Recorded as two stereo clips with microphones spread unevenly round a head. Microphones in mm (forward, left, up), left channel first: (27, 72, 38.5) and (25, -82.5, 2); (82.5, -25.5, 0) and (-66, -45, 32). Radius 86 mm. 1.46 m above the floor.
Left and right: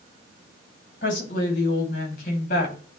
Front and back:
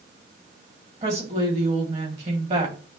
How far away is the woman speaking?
About 3 m.